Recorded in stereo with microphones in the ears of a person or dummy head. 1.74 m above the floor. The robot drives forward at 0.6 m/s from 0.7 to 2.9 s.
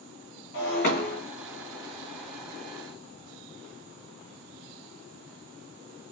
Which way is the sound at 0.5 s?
50° left (ahead or behind).